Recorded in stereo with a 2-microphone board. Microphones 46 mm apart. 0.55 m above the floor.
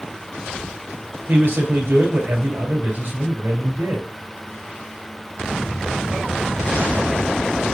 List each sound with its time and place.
1.3 s a man speaking: 55° right (ahead or behind), 3 m